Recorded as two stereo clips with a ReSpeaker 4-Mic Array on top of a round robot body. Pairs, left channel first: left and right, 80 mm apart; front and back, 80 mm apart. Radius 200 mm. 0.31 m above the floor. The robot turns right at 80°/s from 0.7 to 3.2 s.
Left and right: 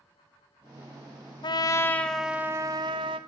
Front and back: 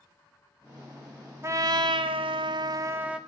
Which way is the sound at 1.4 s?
120° left.